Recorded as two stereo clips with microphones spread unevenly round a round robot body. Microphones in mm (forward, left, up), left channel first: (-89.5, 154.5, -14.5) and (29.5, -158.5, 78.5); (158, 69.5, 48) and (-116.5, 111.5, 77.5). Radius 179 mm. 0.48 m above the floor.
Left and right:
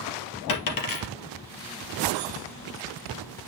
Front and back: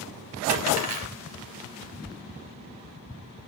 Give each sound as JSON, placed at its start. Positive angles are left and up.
{"t": 0.5, "sound": "a dropped coin", "azimuth_deg": 145, "distance_m": 2.5}